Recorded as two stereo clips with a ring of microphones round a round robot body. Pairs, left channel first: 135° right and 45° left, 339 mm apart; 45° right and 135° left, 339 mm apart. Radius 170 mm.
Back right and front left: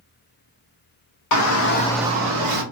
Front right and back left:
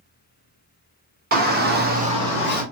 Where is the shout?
165° right, 1.1 m; by 2.6 s 45° left, 1.0 m.